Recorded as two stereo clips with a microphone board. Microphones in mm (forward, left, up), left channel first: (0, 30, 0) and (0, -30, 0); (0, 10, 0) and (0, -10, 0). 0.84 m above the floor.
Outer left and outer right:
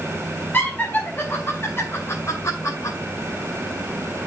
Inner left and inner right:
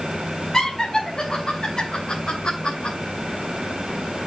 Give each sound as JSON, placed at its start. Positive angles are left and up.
{"t": 0.5, "sound": "laughter", "side_deg": 30, "distance_m": 3.5}